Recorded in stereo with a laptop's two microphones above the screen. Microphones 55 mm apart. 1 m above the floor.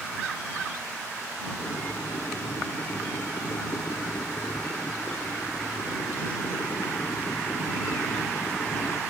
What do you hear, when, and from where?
1.6 s boiling: 85° left